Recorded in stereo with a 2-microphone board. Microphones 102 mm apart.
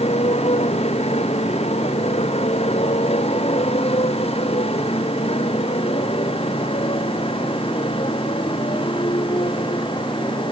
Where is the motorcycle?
90° left; by 10.5 s 55° left (ahead or behind).